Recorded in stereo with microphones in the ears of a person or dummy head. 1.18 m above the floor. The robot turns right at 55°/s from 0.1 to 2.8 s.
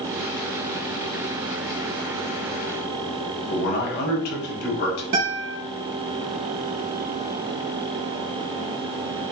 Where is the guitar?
60° right (ahead or behind), 1.0 m.